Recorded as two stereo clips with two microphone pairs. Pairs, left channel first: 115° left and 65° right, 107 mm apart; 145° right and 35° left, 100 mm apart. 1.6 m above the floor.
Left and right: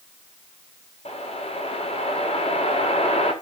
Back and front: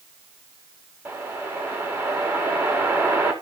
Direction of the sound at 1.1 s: 100° left.